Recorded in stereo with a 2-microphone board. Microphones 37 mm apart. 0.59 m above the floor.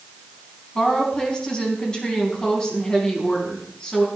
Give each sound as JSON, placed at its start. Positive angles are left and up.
{"t": 0.8, "sound": "a woman speaking", "side_deg": 20, "distance_m": 4.0}